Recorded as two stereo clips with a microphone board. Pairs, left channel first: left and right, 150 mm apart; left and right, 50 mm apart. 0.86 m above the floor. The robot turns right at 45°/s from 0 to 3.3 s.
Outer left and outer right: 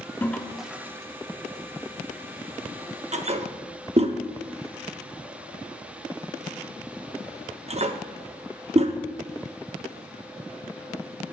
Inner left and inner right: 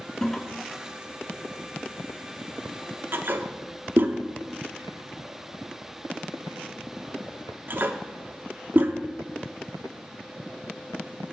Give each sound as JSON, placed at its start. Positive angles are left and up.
{"t": 0.2, "sound": "a toilet flushing", "side_deg": 15, "distance_m": 0.5}